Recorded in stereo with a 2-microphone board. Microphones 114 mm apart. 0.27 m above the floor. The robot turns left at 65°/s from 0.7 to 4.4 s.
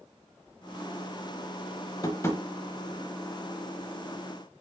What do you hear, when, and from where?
2.0 s tapping: 30° left (ahead or behind), 0.6 m; by 2.4 s 15° left (ahead or behind), 0.6 m